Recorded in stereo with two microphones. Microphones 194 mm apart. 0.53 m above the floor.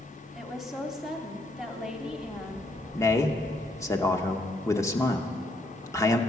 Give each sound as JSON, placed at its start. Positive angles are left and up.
{"t": 0.3, "sound": "a woman speaking", "side_deg": 0, "distance_m": 1.1}
{"t": 2.9, "sound": "a man speaking", "side_deg": 15, "distance_m": 0.8}